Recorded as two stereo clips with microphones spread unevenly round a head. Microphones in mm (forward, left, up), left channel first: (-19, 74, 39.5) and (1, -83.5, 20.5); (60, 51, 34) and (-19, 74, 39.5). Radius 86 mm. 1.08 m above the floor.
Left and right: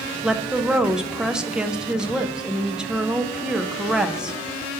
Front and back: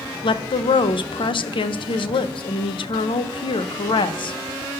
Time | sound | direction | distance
0.2 | a woman speaking | straight ahead | 0.5 m